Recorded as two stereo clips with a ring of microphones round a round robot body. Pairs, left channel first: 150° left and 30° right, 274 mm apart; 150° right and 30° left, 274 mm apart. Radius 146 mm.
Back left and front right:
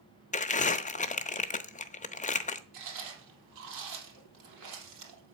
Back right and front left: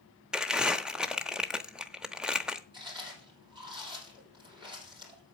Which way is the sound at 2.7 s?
45° right.